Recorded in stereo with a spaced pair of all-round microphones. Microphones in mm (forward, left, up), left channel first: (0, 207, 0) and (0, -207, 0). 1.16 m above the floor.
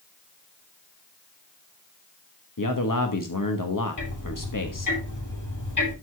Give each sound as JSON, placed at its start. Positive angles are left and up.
{"t": 2.6, "sound": "a man speaking", "side_deg": 50, "distance_m": 1.3}
{"t": 4.0, "sound": "ticking", "side_deg": 50, "distance_m": 8.5}